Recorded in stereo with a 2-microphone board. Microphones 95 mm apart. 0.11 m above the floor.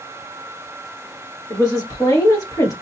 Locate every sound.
1.5 s a woman speaking: 40° left (ahead or behind), 1.7 m